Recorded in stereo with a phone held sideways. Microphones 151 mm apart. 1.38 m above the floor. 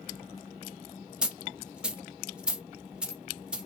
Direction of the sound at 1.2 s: 5° right (ahead or behind).